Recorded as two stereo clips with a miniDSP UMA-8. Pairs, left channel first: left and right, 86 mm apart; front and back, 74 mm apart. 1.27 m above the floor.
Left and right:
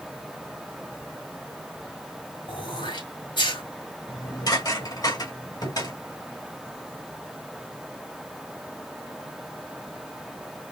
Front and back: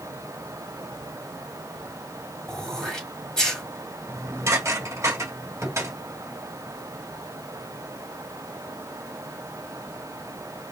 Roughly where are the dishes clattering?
Behind left.